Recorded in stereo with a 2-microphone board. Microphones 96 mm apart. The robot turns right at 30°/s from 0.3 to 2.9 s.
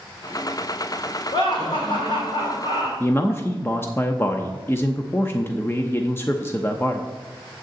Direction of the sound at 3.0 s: 25° left (ahead or behind).